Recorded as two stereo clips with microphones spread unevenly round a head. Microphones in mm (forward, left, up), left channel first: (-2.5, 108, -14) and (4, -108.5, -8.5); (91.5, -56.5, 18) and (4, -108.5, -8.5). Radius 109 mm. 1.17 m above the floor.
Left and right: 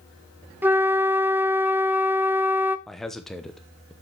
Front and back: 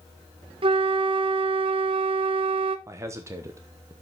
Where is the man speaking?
Straight behind, 0.9 m.